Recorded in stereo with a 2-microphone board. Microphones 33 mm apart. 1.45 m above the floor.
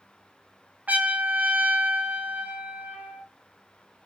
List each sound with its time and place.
0.9 s a trumpet: 55° right (ahead or behind), 0.5 m